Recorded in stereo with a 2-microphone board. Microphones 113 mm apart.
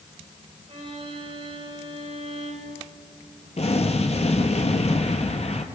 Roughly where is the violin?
Right.